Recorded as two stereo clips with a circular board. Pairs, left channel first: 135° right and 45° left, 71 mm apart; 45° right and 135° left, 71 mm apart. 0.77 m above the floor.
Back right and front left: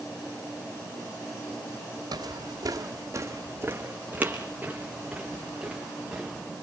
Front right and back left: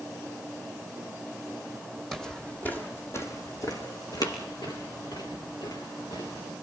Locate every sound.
2.1 s footsteps: 40° left, 2 m; by 6.4 s 40° right, 5.5 m